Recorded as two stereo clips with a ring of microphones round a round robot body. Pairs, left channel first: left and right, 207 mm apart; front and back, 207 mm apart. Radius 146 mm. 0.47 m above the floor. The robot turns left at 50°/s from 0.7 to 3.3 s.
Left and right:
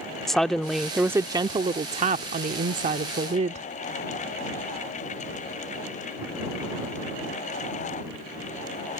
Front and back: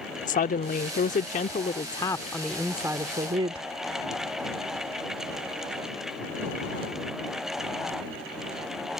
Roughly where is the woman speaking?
Ahead.